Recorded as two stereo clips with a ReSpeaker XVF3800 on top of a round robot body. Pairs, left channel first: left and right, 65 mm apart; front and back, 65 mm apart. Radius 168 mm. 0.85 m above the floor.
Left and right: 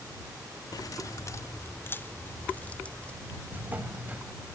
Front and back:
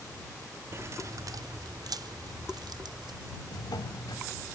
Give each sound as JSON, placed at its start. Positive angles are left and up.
{"t": 0.7, "sound": "keys jangling", "azimuth_deg": 125}
{"t": 3.5, "sound": "a drawer", "azimuth_deg": -20}